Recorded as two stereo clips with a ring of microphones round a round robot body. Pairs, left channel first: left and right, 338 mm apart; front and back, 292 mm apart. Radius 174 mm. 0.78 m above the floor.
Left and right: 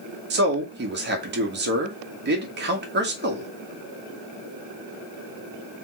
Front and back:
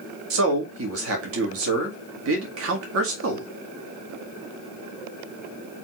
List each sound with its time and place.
0.3 s a man speaking: 145° right, 1.8 m